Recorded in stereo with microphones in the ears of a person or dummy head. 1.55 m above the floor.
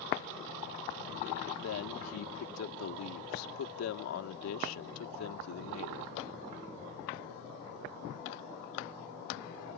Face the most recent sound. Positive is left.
turn(degrees=80)